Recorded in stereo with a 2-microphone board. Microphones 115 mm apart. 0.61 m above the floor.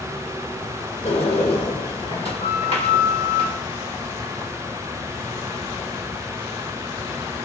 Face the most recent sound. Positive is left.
turn(degrees=55)  # may be behind; listen again after turning